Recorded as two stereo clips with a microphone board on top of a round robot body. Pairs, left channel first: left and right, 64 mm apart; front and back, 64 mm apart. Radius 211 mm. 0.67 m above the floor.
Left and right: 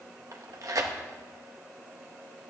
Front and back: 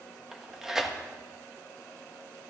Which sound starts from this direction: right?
Tearing paper, at 0.3 s.